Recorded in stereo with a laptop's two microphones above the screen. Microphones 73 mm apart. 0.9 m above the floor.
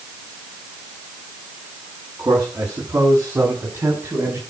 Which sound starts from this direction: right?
A man speaking, at 2.2 s.